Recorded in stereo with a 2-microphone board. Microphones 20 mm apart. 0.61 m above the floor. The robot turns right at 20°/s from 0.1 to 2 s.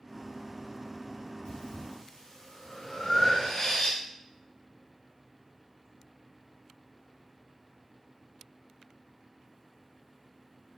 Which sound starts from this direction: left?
Breathing, at 1.4 s.